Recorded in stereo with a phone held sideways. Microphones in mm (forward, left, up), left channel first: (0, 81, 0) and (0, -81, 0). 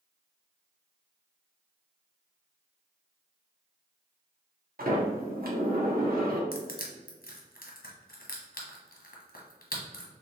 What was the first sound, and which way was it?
A sliding door, 65° right (ahead or behind).